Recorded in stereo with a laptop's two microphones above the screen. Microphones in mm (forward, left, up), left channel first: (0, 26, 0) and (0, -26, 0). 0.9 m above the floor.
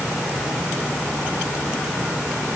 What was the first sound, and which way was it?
Only background noise.